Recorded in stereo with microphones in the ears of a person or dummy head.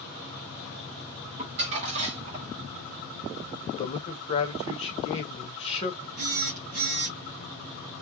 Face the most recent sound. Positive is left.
turn(degrees=-45)  # may be behind; listen again after turning